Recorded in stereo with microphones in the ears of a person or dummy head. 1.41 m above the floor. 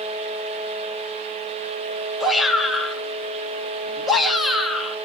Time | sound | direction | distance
2.2 | a shout | 5° left (ahead or behind) | 3 m